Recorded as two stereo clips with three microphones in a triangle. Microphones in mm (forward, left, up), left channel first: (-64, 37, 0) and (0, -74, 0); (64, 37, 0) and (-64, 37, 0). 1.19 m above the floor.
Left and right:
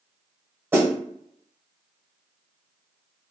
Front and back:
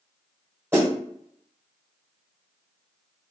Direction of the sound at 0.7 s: 120° right.